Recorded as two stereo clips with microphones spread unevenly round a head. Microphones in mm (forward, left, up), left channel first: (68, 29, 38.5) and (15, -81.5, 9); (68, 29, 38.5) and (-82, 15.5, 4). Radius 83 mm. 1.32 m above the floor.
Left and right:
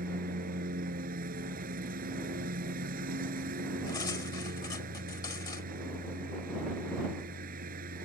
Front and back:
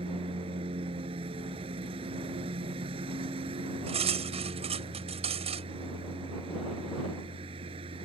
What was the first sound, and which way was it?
A lawn mower, 110° right.